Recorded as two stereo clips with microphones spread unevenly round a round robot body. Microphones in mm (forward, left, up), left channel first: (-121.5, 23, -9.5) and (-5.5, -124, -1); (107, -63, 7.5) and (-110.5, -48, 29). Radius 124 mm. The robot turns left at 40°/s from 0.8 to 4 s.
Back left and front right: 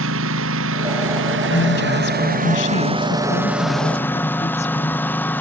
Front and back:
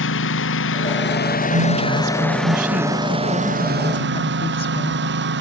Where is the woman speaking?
165° left; by 5.2 s 65° left.